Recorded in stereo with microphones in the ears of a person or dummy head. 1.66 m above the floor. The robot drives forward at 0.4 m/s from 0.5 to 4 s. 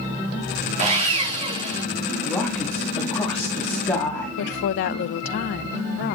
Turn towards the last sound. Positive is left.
turn(degrees=55)  # may be behind; listen again after turning